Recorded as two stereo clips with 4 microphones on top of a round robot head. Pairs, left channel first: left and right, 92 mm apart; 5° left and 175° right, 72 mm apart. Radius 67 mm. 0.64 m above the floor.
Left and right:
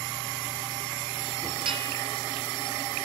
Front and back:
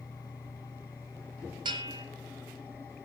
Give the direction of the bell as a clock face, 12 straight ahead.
4 o'clock.